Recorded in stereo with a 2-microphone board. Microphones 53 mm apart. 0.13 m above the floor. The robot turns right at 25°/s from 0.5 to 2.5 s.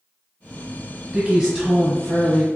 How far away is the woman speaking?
About 1.7 m.